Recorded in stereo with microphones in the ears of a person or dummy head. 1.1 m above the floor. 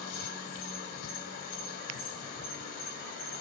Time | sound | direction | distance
0.0 | an insect | 55° left (ahead or behind) | 1.8 m